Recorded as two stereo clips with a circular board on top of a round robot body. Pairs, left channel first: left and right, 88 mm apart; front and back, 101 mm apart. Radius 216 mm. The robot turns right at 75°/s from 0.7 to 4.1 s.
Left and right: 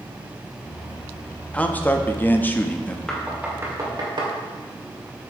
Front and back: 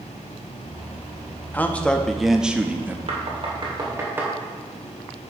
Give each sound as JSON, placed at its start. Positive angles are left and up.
{"t": 1.5, "sound": "a man speaking", "azimuth_deg": 40, "distance_m": 1.1}
{"t": 3.1, "sound": "knocking", "azimuth_deg": 170, "distance_m": 2.5}